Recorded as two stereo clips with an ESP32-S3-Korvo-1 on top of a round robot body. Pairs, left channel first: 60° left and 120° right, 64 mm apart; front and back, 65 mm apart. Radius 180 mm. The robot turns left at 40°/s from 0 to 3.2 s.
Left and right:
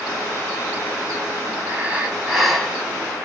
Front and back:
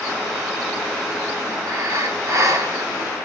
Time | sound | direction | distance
1.7 | breathing | 175° right | 2.0 m